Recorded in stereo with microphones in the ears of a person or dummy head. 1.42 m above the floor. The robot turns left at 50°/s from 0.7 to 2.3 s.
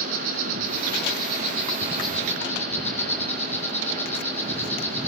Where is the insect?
115° right, 2 m; by 5.1 s 165° left, 2 m.